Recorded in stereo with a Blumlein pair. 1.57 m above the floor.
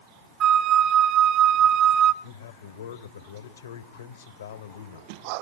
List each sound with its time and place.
0.4 s a flute: 30° right, 0.9 m
2.2 s a man speaking: 65° left, 1.2 m